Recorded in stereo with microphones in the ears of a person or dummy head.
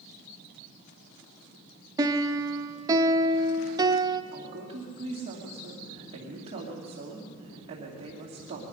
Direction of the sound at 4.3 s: 30° right (ahead or behind).